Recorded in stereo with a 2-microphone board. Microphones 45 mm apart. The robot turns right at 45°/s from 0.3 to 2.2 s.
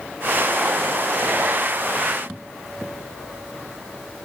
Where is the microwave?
I don't hear a microwave.